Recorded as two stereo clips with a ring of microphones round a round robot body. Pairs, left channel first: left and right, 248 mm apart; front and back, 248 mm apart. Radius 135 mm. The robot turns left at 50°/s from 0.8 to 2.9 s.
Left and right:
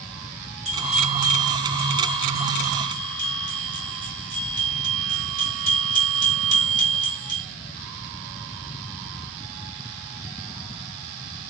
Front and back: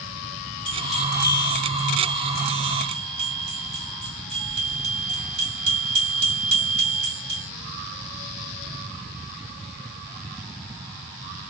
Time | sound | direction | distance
0.7 | a bell | 55° right | 2.5 m